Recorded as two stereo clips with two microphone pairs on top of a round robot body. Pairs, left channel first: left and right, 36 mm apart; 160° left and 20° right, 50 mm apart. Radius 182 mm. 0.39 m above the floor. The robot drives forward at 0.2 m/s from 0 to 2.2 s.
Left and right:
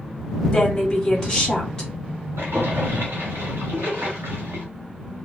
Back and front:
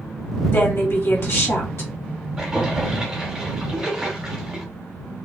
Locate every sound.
0.5 s a woman speaking: 160° left, 1.9 m
2.4 s a splash: 105° right, 1.2 m